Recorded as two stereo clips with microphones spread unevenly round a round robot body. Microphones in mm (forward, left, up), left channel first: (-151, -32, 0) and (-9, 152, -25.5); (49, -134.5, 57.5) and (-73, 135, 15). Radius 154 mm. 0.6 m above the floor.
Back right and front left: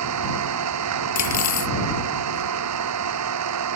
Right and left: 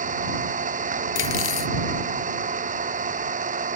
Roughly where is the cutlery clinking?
Behind right.